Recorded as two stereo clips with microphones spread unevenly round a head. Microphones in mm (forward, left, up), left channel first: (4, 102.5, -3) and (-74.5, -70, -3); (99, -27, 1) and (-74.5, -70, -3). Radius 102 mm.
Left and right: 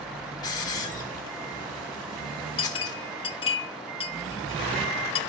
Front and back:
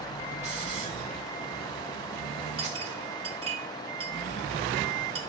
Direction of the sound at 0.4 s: 135° left.